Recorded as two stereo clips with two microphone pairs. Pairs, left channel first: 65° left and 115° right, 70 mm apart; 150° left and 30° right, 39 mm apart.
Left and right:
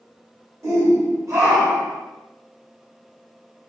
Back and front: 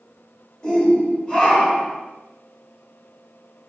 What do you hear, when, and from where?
0.6 s a shout: 140° right, 1.6 m